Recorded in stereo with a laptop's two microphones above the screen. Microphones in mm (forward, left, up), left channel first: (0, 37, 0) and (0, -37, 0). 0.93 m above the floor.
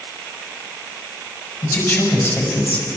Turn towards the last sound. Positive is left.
turn(degrees=35)  # may be behind; listen again after turning